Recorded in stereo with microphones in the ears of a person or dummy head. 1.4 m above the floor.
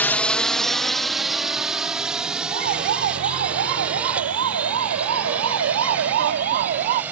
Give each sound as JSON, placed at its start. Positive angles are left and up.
{"t": 0.0, "sound": "a drone", "side_deg": 10}
{"t": 2.5, "sound": "a siren", "side_deg": -55}